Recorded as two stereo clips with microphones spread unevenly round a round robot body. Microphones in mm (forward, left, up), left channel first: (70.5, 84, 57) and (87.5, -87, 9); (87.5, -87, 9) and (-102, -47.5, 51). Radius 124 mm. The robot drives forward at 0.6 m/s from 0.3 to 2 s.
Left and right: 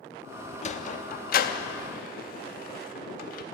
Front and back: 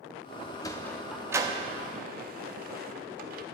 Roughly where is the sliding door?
Ahead left.